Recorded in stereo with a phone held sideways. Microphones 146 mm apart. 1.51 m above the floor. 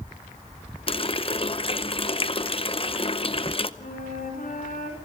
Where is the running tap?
40° left (ahead or behind), 0.7 m.